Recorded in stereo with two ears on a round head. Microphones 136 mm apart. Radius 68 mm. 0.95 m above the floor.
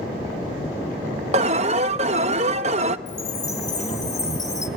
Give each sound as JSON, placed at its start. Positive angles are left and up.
{"t": 1.3, "sound": "an alarm", "side_deg": -45, "distance_m": 0.7}
{"t": 3.1, "sound": "a chime", "side_deg": 20, "distance_m": 1.7}